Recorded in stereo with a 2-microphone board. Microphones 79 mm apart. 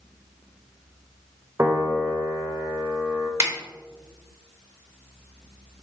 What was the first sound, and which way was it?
A piano, 35° right (ahead or behind).